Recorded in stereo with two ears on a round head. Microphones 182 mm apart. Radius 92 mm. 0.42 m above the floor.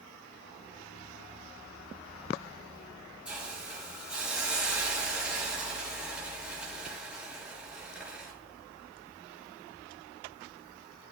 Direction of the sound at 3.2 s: 5° right (ahead or behind).